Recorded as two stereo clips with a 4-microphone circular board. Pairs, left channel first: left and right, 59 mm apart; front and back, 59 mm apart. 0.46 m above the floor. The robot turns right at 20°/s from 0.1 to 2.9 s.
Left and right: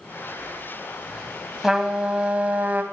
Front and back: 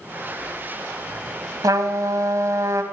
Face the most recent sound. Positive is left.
turn(degrees=-150)